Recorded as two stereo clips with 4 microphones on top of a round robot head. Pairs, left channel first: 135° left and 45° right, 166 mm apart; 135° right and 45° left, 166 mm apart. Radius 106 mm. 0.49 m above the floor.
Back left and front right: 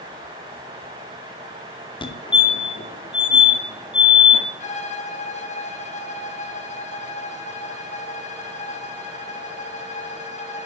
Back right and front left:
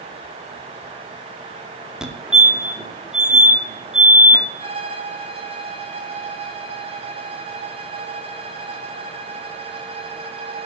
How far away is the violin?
About 2 m.